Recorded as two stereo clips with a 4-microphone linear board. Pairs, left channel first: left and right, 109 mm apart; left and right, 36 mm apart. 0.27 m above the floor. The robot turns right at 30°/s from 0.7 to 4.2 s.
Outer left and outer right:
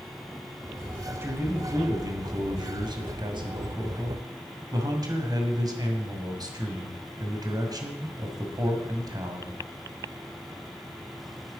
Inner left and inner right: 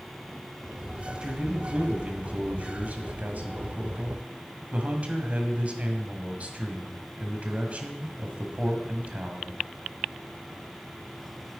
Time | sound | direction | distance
1.1 | a man speaking | 155° right | 1.7 m